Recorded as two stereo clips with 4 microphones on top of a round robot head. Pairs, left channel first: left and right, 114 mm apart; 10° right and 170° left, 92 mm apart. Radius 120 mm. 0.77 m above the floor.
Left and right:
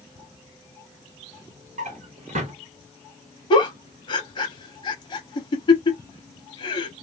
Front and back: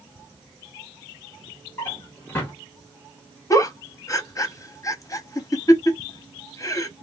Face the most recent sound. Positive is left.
turn(degrees=45)